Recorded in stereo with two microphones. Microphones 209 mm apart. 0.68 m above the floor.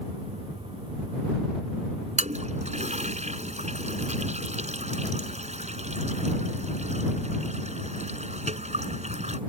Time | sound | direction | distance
2.2 | a toilet flushing | 35° right (ahead or behind) | ?